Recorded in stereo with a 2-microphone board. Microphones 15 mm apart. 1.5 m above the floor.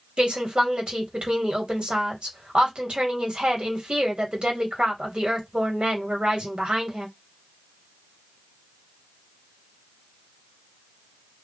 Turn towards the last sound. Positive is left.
turn(degrees=-80)